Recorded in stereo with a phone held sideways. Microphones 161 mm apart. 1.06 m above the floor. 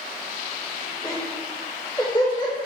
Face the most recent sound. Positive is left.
turn(degrees=25)  # may be behind; listen again after turning